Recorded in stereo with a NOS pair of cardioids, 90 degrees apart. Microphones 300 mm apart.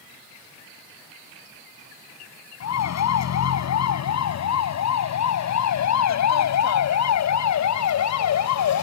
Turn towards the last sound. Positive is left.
turn(degrees=70)